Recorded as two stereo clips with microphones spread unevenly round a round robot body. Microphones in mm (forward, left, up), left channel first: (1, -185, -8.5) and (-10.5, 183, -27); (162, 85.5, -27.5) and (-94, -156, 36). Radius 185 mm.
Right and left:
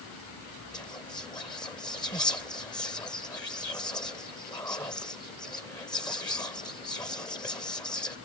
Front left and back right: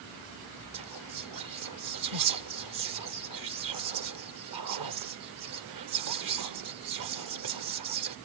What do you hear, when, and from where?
0.7 s whispering: 170° right